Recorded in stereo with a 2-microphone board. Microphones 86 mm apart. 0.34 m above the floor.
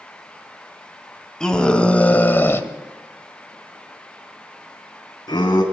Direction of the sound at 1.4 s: 10° left (ahead or behind).